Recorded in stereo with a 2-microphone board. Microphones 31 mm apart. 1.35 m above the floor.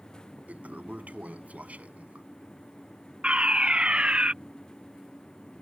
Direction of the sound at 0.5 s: 60° right (ahead or behind).